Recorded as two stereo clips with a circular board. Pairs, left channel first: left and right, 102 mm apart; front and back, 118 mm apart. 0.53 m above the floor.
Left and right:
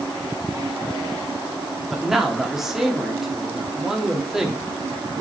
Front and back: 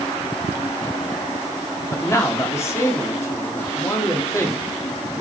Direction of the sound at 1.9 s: 10° right.